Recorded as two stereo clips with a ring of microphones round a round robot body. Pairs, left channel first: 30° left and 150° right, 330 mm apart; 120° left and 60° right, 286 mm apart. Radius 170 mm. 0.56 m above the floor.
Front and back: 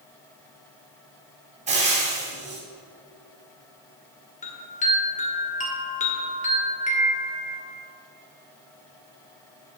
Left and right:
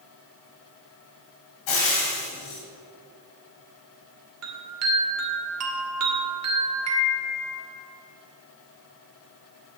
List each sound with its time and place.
1.7 s frying: 140° left, 3 m
4.4 s a chime: 35° right, 1.8 m